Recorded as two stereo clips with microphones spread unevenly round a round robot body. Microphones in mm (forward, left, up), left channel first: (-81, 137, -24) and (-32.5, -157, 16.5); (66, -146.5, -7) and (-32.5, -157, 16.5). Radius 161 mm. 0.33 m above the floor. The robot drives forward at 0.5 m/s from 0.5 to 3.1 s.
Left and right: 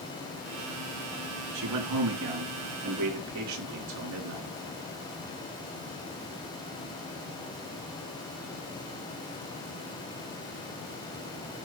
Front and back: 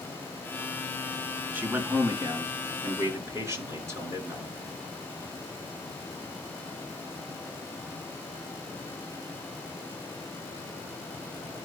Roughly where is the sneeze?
No sneeze in this recording.